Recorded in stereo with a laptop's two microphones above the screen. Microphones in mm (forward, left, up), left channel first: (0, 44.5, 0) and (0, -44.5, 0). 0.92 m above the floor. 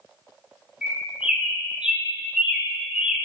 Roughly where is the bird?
Centre.